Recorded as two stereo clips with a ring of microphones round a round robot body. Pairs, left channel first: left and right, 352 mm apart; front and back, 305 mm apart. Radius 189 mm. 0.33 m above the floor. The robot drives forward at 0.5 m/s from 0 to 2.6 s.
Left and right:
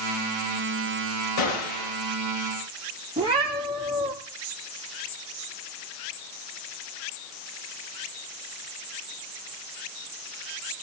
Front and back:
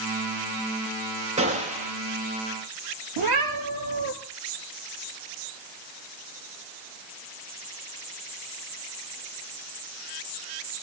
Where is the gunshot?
110° left, 6 m; by 1.9 s 115° left, 6 m.